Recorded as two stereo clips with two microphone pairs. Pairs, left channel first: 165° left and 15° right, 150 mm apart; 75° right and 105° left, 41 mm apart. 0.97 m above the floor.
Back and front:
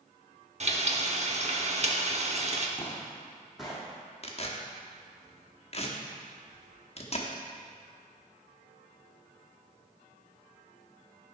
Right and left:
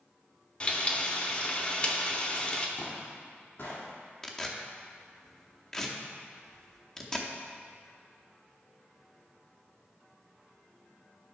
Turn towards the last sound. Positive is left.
turn(degrees=-150)